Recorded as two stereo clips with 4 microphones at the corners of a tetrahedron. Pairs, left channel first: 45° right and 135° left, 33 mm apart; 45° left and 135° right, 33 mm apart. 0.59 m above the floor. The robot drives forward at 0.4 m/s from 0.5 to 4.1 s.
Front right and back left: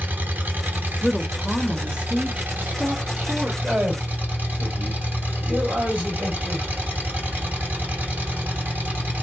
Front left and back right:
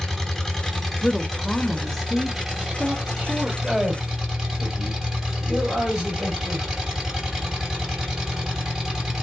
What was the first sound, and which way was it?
An engine running, 120° left.